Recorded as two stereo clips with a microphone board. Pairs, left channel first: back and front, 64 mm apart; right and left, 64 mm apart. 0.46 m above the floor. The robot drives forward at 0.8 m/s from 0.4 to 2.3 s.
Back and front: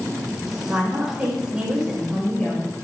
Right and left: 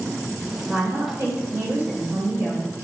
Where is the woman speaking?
50° left, 1.8 m; by 2.7 s 105° left, 1.6 m.